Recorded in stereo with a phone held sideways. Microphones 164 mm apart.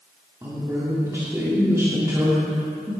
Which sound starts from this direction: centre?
A woman speaking, at 0.4 s.